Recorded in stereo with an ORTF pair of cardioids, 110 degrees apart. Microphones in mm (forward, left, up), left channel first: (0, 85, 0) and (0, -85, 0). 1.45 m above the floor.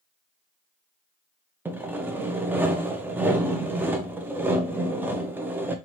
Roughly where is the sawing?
Ahead.